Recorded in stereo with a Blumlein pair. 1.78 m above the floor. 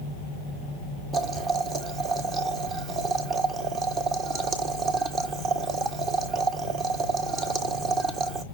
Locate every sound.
1.1 s boiling: 30° right, 1.2 m